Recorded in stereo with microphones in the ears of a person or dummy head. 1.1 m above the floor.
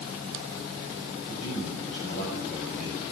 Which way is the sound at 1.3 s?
35° left (ahead or behind).